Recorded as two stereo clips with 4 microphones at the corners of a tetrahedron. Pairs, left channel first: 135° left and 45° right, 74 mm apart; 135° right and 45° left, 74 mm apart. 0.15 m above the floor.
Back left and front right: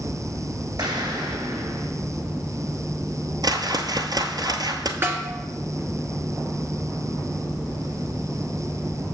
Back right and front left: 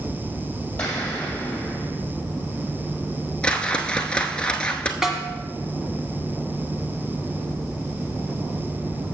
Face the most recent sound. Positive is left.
turn(degrees=-35)